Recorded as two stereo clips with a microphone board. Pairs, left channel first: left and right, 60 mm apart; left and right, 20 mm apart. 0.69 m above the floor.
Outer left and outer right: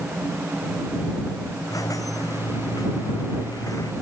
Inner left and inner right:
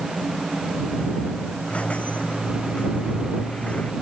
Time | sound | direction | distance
1.7 | a squeak | 75° left (ahead or behind) | ?